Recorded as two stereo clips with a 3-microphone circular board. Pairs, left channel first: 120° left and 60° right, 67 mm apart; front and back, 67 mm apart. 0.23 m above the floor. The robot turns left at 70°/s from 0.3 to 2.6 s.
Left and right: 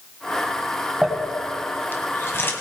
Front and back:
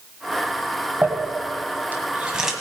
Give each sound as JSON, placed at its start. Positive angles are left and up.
{"t": 1.0, "sound": "crumpling", "azimuth_deg": -155, "distance_m": 1.7}